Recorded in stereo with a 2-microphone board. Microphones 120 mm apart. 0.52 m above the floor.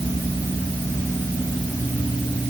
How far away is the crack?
I don't hear a crack.